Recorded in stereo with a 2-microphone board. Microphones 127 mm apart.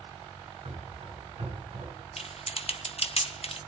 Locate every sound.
0.7 s running footsteps: 50° right (ahead or behind), 9 m; by 1.9 s 45° right (ahead or behind), 8 m
2.2 s typing on a keyboard: 55° left (ahead or behind), 1.0 m